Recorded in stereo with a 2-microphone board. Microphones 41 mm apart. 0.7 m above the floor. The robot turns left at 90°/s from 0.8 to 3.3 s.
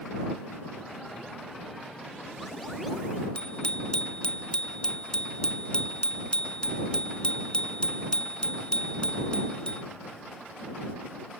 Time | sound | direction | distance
3.4 | a bicycle bell | 20° left (ahead or behind) | ?